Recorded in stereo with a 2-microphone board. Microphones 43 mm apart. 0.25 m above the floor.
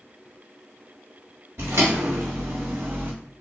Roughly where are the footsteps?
Right.